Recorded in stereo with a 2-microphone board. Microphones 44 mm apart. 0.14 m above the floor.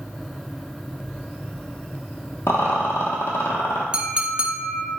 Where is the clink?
25° right (ahead or behind), 0.7 m.